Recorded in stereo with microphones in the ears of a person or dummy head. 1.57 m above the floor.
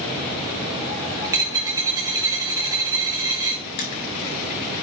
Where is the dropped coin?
15° right (ahead or behind), 1.0 m.